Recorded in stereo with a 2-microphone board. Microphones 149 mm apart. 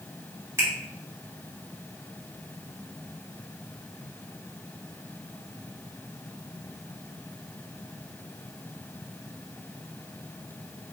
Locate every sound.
0.6 s a finger snap: 20° right (ahead or behind), 1.8 m